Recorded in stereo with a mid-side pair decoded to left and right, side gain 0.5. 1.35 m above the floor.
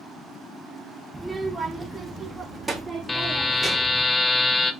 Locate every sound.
1.1 s a child speaking: 15° right, 1.1 m; by 4.0 s 20° right, 3 m
3.1 s a buzzer: 25° left, 0.5 m